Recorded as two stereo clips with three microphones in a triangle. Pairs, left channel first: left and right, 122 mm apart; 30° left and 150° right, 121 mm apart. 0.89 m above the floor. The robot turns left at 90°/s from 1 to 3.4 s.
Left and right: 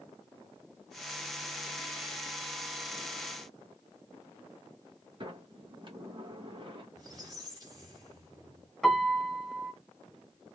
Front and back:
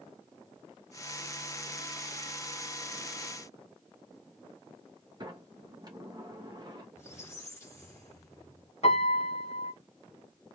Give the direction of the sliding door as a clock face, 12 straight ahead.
4 o'clock.